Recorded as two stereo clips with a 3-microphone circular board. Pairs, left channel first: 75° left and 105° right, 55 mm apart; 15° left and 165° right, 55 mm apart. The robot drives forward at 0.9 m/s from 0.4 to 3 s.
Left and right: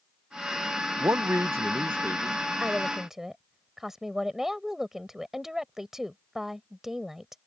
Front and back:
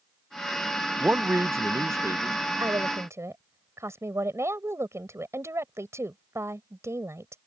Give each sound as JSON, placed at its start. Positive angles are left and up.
{"t": 1.0, "sound": "a man speaking", "azimuth_deg": -105}
{"t": 2.6, "sound": "a woman speaking", "azimuth_deg": 170}